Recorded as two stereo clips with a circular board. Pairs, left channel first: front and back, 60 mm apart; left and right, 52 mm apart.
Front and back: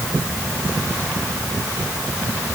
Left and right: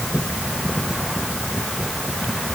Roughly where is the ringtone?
No ringtone in this recording.